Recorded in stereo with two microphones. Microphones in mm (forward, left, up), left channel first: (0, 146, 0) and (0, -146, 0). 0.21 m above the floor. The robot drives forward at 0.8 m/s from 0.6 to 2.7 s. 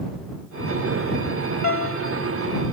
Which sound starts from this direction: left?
A piano, at 1.6 s.